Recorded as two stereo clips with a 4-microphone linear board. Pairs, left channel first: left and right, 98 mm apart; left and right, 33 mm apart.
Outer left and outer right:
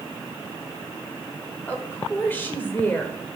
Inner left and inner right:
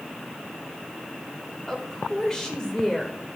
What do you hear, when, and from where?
1.7 s a woman speaking: 20° left (ahead or behind), 1.5 m